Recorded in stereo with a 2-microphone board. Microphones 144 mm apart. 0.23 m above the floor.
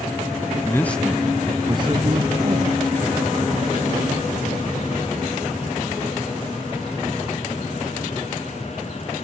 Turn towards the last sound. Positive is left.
turn(degrees=-70)  # may be behind; listen again after turning